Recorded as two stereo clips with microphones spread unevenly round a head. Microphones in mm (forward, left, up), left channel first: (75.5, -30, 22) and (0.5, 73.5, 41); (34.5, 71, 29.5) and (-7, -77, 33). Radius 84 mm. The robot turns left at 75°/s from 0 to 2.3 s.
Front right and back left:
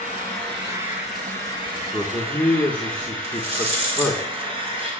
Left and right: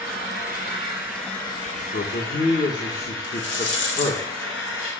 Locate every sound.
0.0 s an engine running: 105° right, 6 m; by 5.0 s 80° left, 6 m
1.7 s a man speaking: 70° left, 2 m; by 4.2 s 30° left, 2 m
3.2 s a rattle: 90° left, 5 m